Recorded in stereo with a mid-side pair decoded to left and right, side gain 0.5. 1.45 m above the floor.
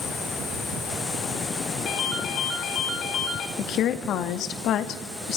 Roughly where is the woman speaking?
Left.